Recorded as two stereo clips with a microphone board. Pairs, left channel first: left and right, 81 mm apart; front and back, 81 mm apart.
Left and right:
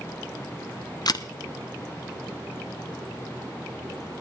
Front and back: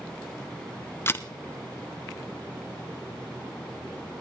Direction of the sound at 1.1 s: 60° left.